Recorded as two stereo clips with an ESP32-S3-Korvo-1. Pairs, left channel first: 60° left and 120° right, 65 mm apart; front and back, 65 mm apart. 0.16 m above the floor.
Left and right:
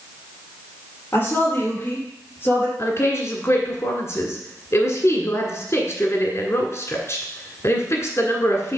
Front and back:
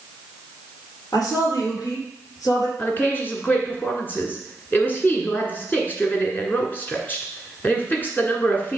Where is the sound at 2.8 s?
50° left, 1.7 m.